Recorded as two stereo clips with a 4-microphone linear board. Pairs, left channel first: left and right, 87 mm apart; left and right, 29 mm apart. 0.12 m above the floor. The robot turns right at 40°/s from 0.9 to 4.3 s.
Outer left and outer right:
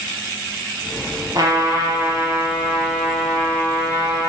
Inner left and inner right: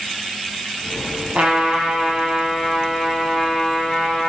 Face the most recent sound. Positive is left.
turn(degrees=45)